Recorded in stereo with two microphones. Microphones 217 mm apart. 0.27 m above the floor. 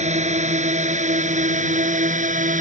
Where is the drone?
30° right (ahead or behind); by 2.6 s 35° right (ahead or behind).